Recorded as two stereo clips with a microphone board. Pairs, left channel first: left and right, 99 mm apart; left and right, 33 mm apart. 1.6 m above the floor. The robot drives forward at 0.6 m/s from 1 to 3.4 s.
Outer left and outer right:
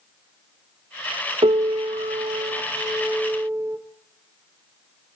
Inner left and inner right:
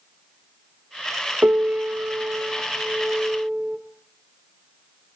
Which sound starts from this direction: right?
A piano, at 1.4 s.